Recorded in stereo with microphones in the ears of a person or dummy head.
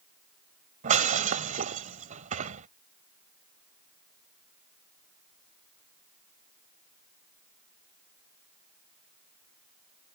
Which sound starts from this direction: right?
Breaking glass, at 0.8 s.